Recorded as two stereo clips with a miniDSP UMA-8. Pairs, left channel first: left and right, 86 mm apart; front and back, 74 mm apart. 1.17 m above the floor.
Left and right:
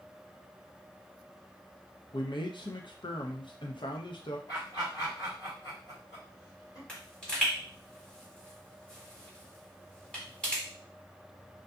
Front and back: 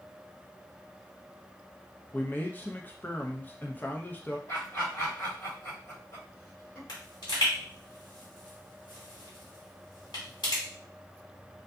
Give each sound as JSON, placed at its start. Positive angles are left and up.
{"t": 2.1, "sound": "a man speaking", "azimuth_deg": 65, "distance_m": 0.5}
{"t": 4.5, "sound": "laughter", "azimuth_deg": 60, "distance_m": 1.8}
{"t": 6.9, "sound": "a pop", "azimuth_deg": 10, "distance_m": 1.5}